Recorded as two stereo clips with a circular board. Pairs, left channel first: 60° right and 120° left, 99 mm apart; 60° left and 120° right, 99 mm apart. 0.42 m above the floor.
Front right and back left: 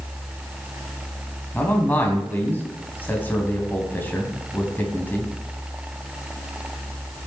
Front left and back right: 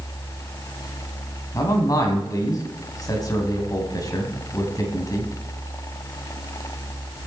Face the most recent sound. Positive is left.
turn(degrees=10)